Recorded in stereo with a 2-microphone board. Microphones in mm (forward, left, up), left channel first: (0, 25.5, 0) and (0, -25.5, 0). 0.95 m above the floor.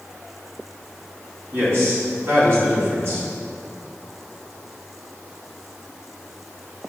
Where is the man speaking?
50° right (ahead or behind), 2.5 m.